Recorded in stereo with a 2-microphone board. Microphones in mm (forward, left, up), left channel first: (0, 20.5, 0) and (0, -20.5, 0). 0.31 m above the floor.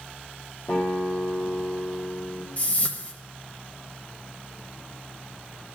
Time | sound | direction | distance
0.7 | a guitar | 55° left (ahead or behind) | 3.5 m
2.6 | a whoosh | 40° left (ahead or behind) | 1.3 m